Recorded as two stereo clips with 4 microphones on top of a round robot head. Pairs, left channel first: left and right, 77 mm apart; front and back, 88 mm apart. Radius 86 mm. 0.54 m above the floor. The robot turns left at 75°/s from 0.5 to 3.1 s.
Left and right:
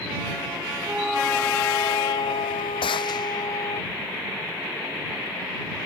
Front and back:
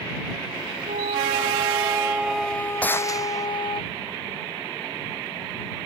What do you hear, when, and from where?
0.9 s a flute: 155° right; by 3.8 s 35° left
2.8 s a gunshot: 75° left; by 3.5 s 50° left